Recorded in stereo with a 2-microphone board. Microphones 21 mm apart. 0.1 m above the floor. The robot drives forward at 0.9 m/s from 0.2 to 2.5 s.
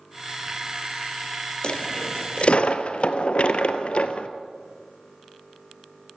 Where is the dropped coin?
45° left (ahead or behind), 1.4 m; by 4.3 s 60° left (ahead or behind), 1.2 m.